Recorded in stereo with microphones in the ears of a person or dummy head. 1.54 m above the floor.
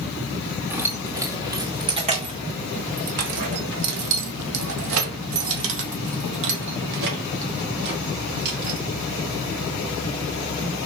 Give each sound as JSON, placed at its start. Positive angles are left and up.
{"t": 0.7, "sound": "keys jangling", "side_deg": -10, "distance_m": 2.0}